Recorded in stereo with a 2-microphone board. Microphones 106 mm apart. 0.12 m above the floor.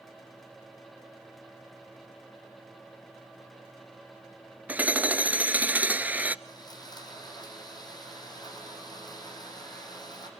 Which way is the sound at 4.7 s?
15° right (ahead or behind).